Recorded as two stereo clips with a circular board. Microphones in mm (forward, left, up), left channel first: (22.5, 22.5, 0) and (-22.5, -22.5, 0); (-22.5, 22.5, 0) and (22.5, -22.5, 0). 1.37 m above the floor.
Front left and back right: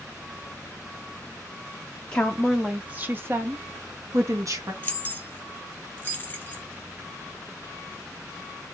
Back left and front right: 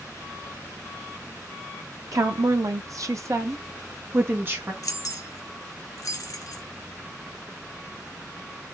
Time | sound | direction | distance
2.1 | a woman speaking | 25° right | 0.5 m
4.8 | keys jangling | 105° left | 0.7 m